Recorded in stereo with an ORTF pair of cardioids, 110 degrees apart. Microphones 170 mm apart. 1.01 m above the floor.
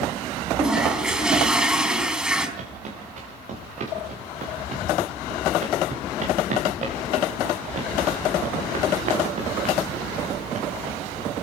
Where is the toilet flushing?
5° right, 4 m.